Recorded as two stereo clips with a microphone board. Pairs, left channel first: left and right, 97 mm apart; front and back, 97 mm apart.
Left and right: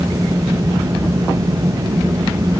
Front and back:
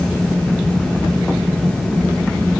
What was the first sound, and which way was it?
Only background noise.